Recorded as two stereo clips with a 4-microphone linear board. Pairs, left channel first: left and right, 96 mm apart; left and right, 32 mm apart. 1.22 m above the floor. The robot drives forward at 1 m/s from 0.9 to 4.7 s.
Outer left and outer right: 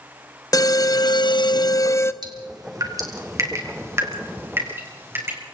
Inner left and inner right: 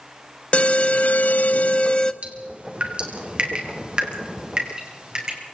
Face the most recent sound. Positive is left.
turn(degrees=-25)  # may be behind; listen again after turning